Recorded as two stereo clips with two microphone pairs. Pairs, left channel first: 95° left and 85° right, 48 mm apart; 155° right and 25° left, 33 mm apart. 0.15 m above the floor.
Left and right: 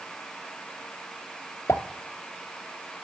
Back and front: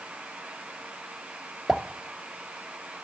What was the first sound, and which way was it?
A pop, 105° left.